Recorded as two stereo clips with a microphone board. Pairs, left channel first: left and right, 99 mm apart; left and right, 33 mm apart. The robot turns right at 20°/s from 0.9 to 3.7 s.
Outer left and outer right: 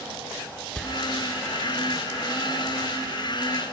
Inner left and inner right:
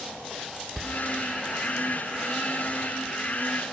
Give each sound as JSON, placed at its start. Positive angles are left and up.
{"t": 0.8, "sound": "a door slam", "side_deg": 10, "distance_m": 1.1}